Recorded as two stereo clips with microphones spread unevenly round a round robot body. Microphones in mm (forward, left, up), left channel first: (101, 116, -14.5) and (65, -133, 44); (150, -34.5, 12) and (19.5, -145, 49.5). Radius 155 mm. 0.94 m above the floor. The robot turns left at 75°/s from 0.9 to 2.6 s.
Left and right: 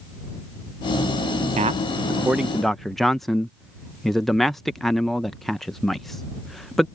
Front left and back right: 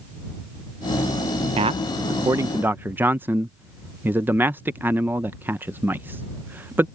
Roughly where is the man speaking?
Behind right.